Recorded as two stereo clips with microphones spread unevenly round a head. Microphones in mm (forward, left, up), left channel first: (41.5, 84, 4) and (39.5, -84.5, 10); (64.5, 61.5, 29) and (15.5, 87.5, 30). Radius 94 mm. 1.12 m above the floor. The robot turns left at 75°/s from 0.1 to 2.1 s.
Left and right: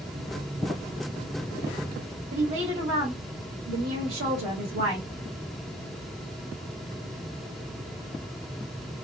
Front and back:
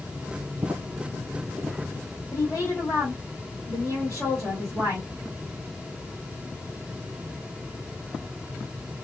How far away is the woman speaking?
About 1.6 m.